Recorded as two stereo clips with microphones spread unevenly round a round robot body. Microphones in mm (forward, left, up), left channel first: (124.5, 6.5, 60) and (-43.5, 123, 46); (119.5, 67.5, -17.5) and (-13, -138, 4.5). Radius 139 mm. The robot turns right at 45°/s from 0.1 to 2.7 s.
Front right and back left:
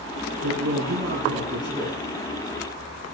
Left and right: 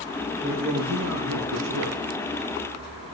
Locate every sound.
0.4 s a man speaking: 150° left, 7.5 m; by 2.0 s 140° right, 7.5 m